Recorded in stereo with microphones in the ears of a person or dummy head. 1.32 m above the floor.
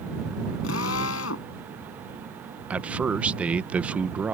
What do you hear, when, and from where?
0.6 s a drill: 70° left (ahead or behind)
2.7 s a man speaking: 10° right (ahead or behind)